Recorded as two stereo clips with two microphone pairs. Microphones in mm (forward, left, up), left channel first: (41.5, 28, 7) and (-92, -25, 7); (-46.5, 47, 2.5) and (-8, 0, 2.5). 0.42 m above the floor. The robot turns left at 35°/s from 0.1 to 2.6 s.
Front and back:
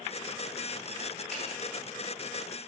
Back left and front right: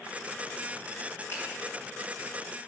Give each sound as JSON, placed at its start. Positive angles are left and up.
{"t": 1.3, "sound": "a finger snap", "azimuth_deg": 110, "distance_m": 2.0}